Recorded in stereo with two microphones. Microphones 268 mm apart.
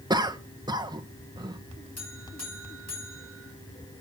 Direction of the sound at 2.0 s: 70° left (ahead or behind).